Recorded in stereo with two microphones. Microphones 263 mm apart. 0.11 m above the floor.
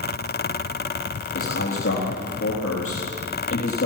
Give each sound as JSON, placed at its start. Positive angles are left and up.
{"t": 1.4, "sound": "a man speaking", "side_deg": 55, "distance_m": 3.5}